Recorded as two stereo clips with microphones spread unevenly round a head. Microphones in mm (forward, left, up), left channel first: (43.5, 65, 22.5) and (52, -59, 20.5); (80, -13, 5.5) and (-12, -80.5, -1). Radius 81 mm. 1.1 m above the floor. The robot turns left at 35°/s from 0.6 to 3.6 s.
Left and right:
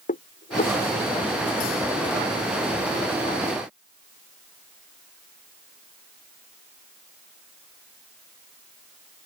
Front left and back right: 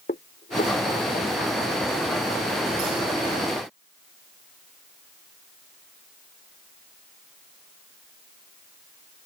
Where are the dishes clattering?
75° left; by 0.8 s 70° left.